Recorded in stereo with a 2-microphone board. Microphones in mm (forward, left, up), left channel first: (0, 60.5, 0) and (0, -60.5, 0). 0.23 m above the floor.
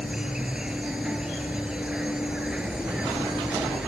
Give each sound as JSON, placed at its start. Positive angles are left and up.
{"t": 0.0, "sound": "an insect", "side_deg": -5}